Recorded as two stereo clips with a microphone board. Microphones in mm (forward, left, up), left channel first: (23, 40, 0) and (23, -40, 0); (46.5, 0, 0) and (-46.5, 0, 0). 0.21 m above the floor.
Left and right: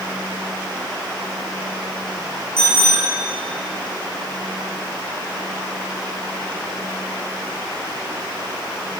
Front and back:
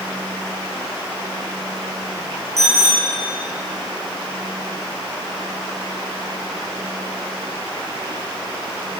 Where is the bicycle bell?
125° left, 9 m.